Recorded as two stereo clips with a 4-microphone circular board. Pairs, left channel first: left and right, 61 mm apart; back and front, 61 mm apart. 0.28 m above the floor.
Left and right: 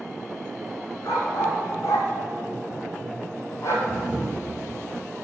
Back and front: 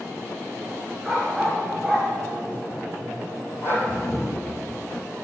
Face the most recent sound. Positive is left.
turn(degrees=-165)